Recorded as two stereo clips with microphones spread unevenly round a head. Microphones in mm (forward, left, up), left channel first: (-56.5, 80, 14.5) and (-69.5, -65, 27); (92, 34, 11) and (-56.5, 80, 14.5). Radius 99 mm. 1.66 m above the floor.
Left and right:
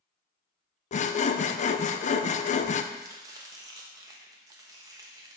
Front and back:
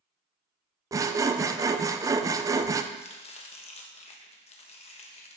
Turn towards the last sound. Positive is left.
turn(degrees=-45)